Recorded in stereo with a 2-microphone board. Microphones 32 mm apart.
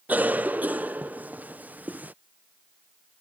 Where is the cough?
65° right (ahead or behind).